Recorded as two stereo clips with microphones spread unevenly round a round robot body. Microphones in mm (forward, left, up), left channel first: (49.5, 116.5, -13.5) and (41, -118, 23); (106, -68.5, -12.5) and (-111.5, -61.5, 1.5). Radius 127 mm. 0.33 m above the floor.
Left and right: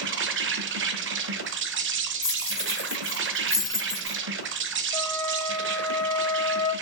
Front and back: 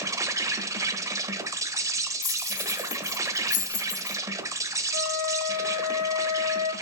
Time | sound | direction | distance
0.0 | an insect | 110° right | 0.9 m
2.2 | keys jangling | 5° right | 3 m
4.9 | a flute | 15° left | 2.5 m